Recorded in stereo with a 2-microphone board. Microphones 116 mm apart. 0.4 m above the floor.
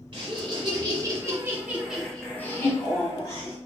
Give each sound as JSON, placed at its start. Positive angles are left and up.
{"t": 0.1, "sound": "laughter", "side_deg": -50, "distance_m": 1.3}